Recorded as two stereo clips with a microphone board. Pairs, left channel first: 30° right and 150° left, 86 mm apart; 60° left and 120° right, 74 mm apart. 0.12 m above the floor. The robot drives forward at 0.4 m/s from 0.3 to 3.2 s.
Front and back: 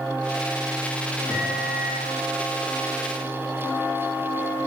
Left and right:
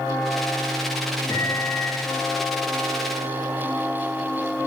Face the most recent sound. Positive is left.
turn(degrees=100)